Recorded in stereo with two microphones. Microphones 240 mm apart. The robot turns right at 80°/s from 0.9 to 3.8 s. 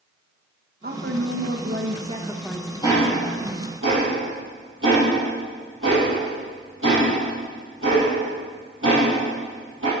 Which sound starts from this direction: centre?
Ticking, at 2.8 s.